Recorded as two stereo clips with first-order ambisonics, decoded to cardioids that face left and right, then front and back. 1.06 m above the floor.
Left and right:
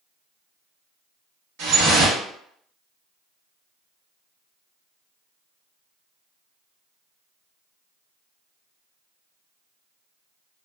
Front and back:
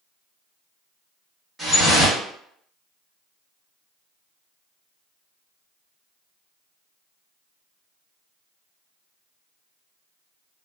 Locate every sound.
1.6 s dripping: 100° right, 1.4 m